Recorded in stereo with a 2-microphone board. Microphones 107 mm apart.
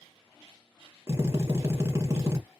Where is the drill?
25° right (ahead or behind), 1.1 m.